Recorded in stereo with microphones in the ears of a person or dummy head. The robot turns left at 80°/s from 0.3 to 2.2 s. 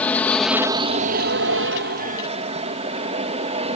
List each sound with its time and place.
0.0 s an aircraft: 10° left; by 3.8 s 140° right